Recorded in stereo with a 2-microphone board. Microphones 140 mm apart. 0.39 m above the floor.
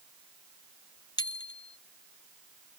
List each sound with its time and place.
1.2 s a bicycle bell: 30° left (ahead or behind)